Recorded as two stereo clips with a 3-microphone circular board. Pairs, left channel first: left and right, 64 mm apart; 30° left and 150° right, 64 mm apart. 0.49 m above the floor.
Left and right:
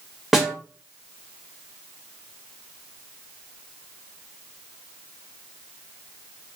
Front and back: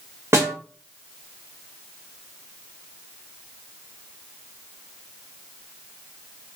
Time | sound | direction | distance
0.3 | a snare drum | 175° right | 1.1 m